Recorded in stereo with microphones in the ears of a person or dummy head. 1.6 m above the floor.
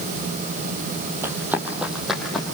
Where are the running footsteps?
15° right (ahead or behind), 3 m; by 2.5 s 5° left (ahead or behind), 4 m.